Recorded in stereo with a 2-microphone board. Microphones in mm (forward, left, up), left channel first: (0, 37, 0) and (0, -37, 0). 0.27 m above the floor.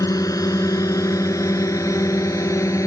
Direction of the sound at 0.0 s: 50° left (ahead or behind).